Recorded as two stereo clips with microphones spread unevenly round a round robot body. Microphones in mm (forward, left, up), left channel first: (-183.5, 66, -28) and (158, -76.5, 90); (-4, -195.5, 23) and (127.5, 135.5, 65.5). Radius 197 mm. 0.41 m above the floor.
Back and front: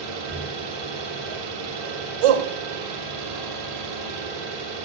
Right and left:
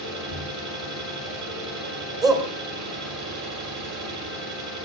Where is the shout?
15° right, 2.5 m.